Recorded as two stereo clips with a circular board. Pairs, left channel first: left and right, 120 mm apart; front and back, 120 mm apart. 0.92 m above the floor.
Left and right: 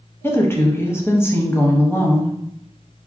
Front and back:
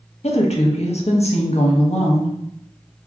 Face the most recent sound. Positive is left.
turn(degrees=20)